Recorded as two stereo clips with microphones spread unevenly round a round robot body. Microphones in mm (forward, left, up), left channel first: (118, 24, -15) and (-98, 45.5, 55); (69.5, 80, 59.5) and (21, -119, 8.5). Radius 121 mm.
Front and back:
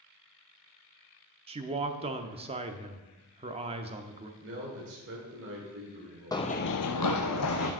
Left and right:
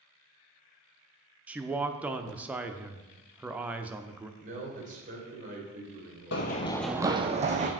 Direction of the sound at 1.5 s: 115° right.